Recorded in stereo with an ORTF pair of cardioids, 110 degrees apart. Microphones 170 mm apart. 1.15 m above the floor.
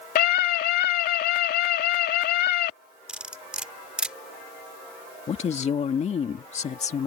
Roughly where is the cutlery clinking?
Ahead.